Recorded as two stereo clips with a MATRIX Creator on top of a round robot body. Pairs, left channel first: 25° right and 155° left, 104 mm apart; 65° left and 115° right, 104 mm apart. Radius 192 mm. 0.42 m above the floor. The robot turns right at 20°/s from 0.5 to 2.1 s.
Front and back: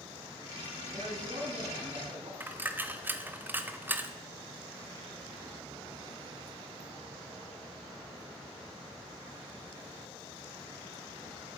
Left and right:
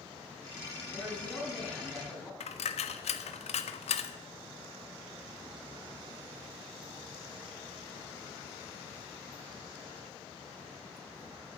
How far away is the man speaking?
About 6.5 m.